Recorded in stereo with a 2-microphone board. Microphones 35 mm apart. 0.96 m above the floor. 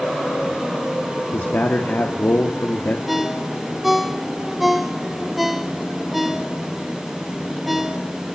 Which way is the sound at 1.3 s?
65° left (ahead or behind).